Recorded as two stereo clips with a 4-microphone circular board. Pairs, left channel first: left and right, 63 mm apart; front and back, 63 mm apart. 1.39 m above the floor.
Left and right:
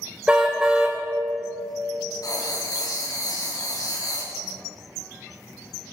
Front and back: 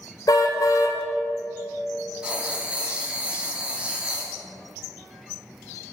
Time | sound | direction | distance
0.3 | a car horn | 15° right | 2 m
2.2 | writing | 110° left | 4 m